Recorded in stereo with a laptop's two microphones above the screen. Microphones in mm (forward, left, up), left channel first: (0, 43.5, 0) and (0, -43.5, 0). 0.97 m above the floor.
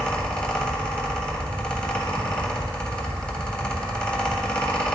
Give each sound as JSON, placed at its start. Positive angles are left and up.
{"t": 0.0, "sound": "a fan", "side_deg": 15, "distance_m": 1.2}